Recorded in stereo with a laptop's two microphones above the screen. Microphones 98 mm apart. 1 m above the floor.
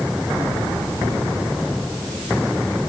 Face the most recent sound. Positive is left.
No sound to turn to.